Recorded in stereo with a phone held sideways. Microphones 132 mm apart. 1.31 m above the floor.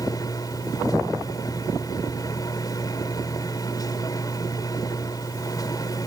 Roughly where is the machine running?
Left.